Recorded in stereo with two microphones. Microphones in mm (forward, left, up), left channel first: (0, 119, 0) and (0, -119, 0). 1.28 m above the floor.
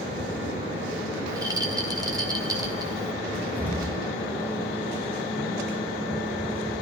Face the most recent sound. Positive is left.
turn(degrees=5)  # may be behind; listen again after turning